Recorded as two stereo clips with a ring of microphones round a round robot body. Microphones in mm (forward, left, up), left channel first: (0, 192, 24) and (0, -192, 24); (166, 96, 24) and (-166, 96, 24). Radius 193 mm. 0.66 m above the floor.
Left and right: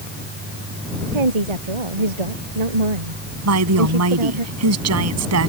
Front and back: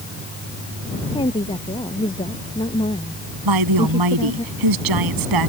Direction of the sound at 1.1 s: 80° right.